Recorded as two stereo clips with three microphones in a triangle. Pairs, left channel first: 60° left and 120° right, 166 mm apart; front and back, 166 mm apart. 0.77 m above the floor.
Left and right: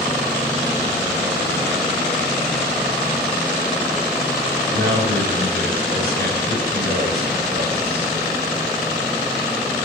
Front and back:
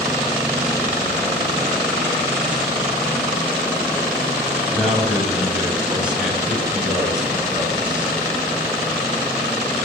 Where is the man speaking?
95° right, 4 m.